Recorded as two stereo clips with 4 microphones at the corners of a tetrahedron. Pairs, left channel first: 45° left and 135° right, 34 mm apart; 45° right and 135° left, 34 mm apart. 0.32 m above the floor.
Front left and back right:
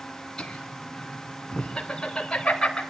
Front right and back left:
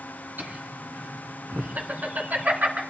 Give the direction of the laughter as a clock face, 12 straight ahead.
8 o'clock.